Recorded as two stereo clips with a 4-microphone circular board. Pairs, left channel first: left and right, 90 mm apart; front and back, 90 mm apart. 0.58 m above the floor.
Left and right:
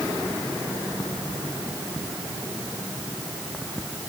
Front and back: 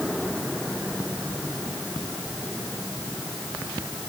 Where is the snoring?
I don't hear snoring.